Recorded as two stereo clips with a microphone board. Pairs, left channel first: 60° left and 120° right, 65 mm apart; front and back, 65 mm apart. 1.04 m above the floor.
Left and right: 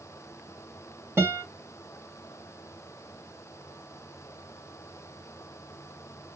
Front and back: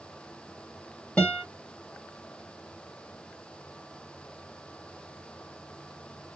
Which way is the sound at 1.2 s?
65° right.